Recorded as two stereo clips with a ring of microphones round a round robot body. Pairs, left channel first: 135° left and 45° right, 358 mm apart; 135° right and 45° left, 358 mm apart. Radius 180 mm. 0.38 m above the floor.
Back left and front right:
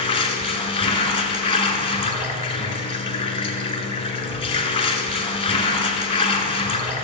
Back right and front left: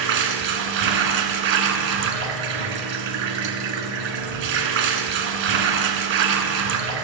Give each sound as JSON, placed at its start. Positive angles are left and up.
{"t": 0.0, "sound": "running water", "azimuth_deg": 60, "distance_m": 1.4}